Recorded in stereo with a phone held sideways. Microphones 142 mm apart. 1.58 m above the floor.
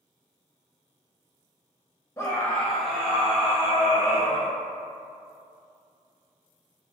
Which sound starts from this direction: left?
A scream, at 2.2 s.